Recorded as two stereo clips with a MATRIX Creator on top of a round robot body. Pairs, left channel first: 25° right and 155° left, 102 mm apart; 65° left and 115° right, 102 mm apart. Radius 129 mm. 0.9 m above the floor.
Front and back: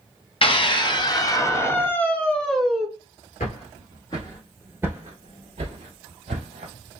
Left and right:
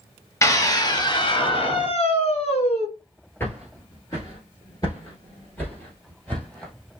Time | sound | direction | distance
0.4 | a scream | 5° left | 1.3 m
3.4 | footsteps | 5° right | 1.0 m